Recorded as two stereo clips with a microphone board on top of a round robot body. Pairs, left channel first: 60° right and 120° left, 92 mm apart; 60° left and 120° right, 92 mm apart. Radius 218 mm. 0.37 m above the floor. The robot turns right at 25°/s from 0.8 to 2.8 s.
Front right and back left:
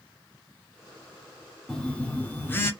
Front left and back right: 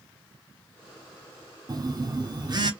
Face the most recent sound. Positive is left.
turn(degrees=-110)